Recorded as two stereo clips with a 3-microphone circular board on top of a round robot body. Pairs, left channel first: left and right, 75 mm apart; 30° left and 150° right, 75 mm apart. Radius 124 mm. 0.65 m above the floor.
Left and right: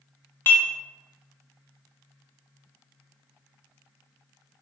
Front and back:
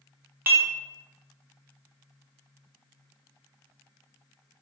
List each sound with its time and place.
0.5 s dishes clattering: 150° left, 0.9 m